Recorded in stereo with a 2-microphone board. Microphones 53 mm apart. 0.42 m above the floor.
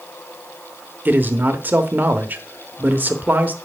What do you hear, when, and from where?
1.1 s a man speaking: 35° right (ahead or behind), 1.0 m